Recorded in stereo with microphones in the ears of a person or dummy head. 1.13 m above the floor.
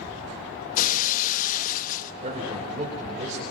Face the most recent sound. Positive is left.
turn(degrees=-45)  # may be behind; listen again after turning